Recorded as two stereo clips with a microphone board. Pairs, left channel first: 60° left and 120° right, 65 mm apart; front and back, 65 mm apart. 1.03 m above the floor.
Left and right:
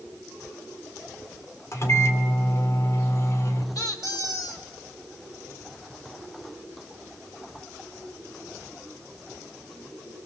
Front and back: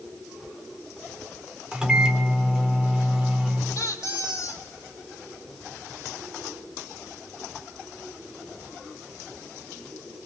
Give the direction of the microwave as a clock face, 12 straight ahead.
9 o'clock.